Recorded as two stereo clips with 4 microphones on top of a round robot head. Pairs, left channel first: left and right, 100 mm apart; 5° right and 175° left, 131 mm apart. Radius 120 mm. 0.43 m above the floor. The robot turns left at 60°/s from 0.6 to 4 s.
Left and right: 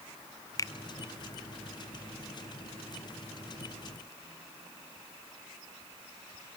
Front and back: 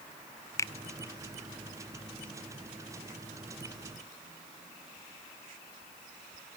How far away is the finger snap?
About 0.8 m.